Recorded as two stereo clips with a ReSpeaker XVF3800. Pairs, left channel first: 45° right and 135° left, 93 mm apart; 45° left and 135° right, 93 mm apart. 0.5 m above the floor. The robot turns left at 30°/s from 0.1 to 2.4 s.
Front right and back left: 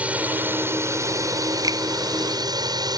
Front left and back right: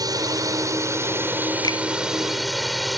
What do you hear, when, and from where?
0.0 s a drone: 155° right; by 3.0 s 135° left
1.6 s a finger snap: 90° left; by 1.8 s 85° left